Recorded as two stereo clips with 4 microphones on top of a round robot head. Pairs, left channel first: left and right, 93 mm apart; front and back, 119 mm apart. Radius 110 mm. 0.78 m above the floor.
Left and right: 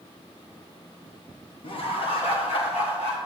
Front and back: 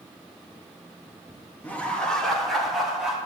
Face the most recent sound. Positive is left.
turn(degrees=95)